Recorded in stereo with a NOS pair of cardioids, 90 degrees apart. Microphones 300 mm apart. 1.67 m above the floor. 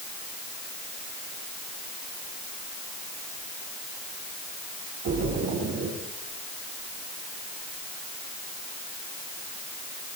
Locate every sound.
5.0 s a splash: 65° right, 9 m